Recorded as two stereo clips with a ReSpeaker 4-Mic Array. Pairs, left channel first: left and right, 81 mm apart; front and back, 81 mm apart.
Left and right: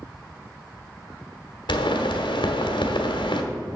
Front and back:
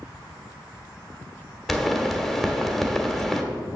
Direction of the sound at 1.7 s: 90° left.